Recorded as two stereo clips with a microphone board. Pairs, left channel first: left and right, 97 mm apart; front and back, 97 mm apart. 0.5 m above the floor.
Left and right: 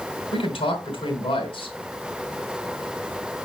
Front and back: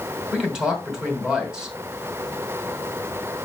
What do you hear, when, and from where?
0.3 s a man speaking: 100° left, 2.5 m